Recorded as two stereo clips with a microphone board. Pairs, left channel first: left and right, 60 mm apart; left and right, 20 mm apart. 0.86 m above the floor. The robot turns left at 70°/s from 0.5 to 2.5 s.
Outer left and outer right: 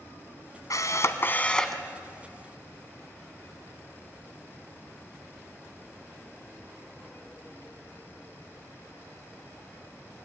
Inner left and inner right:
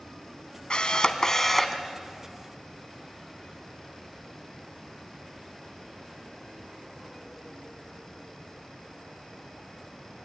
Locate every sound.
0.7 s a camera shutter: 75° left, 1.3 m; by 1.8 s straight ahead, 1.3 m